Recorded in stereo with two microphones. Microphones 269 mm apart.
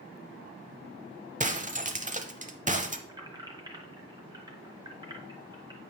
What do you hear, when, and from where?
1.4 s breaking glass: 30° right (ahead or behind), 0.8 m
3.1 s keys jangling: 15° right (ahead or behind), 1.2 m